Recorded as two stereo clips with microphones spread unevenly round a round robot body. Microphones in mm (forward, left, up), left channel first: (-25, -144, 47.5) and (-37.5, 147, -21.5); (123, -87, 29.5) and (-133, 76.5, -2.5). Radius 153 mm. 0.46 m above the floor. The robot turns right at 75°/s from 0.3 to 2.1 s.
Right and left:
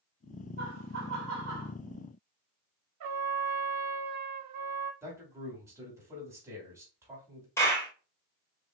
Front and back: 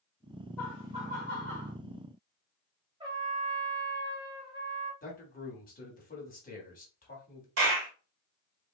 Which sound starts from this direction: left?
A trumpet, at 3.0 s.